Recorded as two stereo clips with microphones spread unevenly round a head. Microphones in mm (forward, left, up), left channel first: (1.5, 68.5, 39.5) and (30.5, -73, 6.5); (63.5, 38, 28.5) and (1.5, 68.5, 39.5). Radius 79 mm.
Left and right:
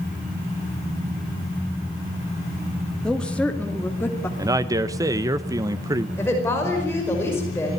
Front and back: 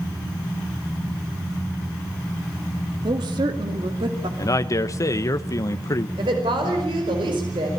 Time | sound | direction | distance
3.0 | a woman speaking | 170° right | 2 m
4.4 | a man speaking | 25° right | 0.8 m
6.2 | a woman speaking | straight behind | 5 m